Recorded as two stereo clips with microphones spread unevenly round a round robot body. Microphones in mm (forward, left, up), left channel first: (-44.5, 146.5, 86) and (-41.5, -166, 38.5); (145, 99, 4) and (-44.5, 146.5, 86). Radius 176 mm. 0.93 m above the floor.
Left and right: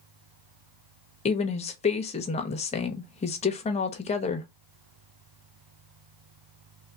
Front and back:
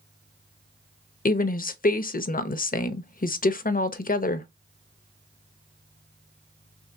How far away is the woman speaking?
About 0.9 m.